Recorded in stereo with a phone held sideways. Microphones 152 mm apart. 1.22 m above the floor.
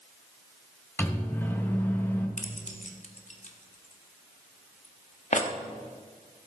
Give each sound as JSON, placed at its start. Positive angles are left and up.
{"t": 1.0, "sound": "a microwave", "side_deg": 15, "distance_m": 1.4}
{"t": 2.4, "sound": "keys jangling", "side_deg": 55, "distance_m": 1.2}